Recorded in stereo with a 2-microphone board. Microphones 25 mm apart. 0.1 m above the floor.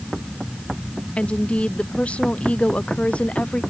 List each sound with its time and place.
1.2 s a woman speaking: 60° left (ahead or behind); by 3.6 s 65° left (ahead or behind)